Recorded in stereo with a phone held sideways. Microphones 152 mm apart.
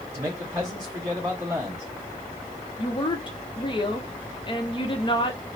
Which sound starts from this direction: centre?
A man speaking, at 0.1 s.